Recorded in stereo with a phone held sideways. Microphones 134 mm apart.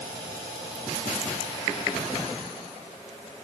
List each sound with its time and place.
Only background noise.